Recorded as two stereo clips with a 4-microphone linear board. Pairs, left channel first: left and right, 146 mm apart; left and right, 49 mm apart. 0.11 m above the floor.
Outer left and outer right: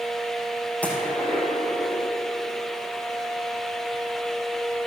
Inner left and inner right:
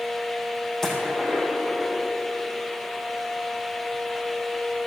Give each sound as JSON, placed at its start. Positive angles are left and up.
{"t": 0.8, "sound": "a gunshot", "side_deg": 10, "distance_m": 5.5}